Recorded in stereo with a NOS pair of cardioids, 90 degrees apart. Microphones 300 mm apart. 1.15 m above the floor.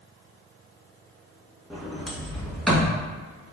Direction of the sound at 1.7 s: Straight ahead.